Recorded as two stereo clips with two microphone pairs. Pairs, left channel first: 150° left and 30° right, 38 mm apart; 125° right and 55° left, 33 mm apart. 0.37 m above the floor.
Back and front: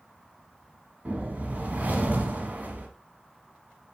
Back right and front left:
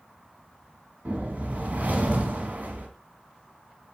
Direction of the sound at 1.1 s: 15° left.